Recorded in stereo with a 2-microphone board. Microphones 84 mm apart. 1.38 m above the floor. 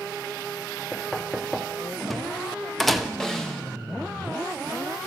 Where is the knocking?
5° left (ahead or behind), 0.7 m.